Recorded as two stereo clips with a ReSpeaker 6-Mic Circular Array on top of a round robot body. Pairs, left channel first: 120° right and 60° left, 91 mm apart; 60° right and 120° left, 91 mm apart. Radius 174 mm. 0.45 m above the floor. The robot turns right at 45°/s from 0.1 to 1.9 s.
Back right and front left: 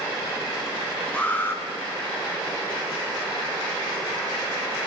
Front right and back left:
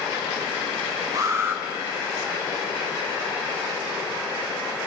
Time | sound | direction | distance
1.1 | an alarm | 165° left | 3.5 m